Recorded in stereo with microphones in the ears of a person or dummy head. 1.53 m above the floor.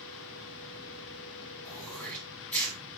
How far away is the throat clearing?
About 3 m.